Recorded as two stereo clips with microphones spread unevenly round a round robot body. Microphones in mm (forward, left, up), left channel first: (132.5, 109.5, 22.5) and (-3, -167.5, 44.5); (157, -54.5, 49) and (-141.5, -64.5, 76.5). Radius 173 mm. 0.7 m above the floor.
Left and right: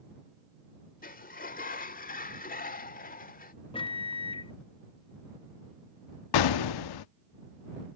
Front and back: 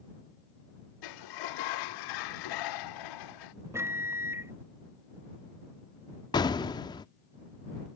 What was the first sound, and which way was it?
A sliding door, straight ahead.